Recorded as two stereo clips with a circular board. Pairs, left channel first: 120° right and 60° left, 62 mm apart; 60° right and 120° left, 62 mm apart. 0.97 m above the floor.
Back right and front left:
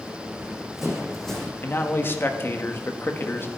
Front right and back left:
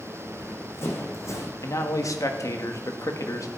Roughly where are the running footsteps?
Ahead.